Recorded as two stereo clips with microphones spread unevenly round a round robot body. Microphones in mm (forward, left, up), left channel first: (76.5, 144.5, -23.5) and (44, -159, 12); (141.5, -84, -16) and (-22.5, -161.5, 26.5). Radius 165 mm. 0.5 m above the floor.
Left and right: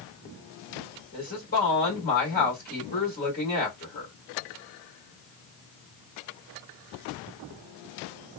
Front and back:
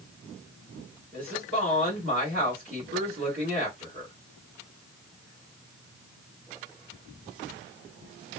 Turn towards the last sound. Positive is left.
turn(degrees=140)